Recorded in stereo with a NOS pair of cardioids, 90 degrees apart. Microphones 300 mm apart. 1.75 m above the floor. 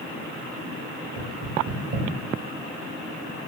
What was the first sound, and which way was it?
Knocking, 60° right.